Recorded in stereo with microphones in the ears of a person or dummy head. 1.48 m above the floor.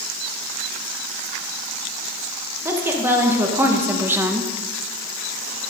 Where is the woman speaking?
10° right (ahead or behind), 1.7 m; by 4.5 s 5° right (ahead or behind), 0.6 m.